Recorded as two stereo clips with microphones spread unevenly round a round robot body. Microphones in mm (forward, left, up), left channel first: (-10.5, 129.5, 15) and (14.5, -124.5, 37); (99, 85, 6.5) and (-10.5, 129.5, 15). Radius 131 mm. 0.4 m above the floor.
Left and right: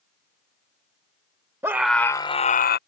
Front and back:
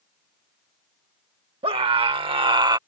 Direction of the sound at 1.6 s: 165° right.